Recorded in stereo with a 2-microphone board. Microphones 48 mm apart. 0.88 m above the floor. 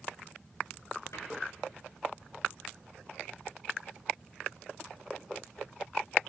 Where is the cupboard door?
80° left, 9.5 m.